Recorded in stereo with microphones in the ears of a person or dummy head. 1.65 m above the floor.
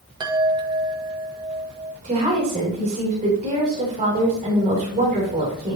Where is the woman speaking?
35° right (ahead or behind), 2.5 m.